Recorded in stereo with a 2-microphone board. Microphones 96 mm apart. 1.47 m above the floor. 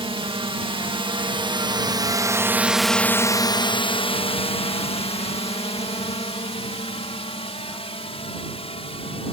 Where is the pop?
No pop in this recording.